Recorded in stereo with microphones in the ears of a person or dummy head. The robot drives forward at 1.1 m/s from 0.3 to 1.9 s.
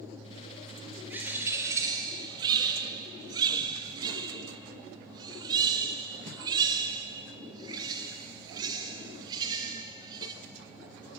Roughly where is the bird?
Centre.